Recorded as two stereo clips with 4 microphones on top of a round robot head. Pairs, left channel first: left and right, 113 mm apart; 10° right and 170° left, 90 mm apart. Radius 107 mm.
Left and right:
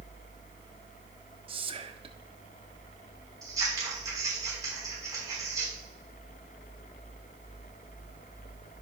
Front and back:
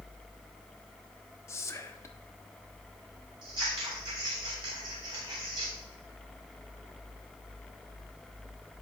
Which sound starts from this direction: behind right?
Scissors, at 3.4 s.